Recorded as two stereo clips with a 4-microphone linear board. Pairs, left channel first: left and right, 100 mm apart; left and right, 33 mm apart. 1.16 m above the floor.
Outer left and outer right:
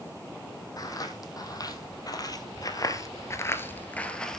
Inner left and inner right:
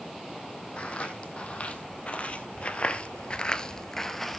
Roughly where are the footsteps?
Left.